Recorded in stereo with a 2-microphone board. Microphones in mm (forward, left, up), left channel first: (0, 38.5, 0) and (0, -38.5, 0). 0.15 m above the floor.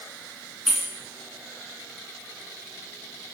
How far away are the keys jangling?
About 1.4 m.